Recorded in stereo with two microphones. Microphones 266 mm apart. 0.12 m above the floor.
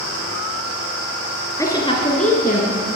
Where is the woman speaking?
10° left (ahead or behind), 1.7 m; by 2.8 s 35° left (ahead or behind), 1.8 m.